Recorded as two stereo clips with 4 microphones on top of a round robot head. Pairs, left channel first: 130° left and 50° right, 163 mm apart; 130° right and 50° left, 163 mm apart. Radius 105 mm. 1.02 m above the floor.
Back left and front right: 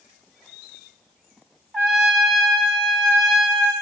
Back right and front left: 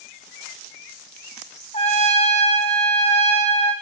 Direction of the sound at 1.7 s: 145° right.